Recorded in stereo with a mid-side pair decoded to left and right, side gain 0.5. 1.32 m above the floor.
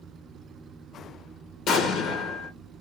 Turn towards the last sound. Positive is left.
turn(degrees=70)